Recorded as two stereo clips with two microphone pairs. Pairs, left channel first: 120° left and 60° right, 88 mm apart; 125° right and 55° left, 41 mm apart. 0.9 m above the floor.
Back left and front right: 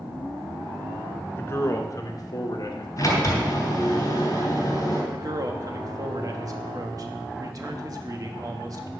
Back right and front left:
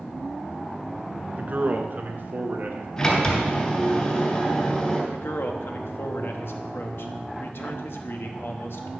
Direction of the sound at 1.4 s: 75° left.